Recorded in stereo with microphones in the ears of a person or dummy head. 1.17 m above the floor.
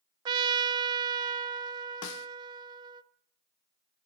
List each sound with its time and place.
0.2 s a trumpet: 30° right (ahead or behind), 0.6 m
2.0 s a snare drum: 65° left (ahead or behind), 0.8 m